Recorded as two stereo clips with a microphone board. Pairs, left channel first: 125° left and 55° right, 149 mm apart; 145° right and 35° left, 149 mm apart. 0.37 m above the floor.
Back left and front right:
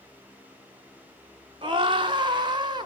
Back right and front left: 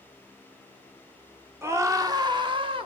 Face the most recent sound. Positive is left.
turn(degrees=-5)